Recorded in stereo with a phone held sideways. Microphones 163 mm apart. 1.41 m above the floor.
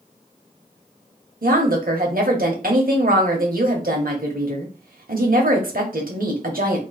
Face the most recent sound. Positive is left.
turn(degrees=-70)  # may be behind; listen again after turning